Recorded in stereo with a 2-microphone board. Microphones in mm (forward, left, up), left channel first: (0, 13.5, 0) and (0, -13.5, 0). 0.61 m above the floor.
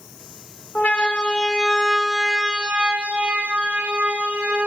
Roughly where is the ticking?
No ticking in this recording.